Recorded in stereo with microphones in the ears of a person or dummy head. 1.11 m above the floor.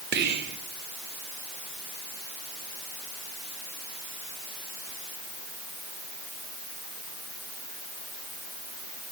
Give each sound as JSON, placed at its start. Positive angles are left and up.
{"t": 0.1, "sound": "whispering", "side_deg": -50, "distance_m": 1.0}